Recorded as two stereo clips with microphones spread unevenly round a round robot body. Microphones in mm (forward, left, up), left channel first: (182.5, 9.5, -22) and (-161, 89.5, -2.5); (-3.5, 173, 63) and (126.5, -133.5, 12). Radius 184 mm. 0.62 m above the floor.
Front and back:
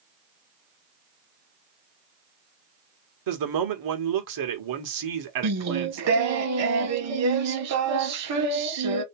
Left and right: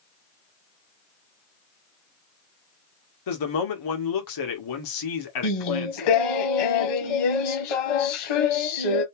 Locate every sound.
3.3 s a man speaking: 140° left, 1.8 m
5.4 s singing: 120° left, 1.3 m